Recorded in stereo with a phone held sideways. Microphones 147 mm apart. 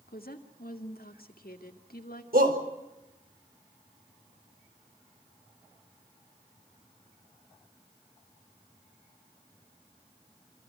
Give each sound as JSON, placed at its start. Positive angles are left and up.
{"t": 0.1, "sound": "a woman speaking", "side_deg": 85, "distance_m": 2.0}
{"t": 2.3, "sound": "a shout", "side_deg": -80, "distance_m": 5.0}